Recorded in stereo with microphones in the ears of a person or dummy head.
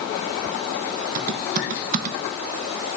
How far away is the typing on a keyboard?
About 1.0 m.